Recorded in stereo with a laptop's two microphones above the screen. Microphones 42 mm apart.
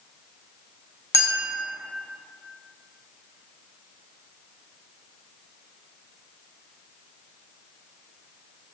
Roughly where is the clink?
Left.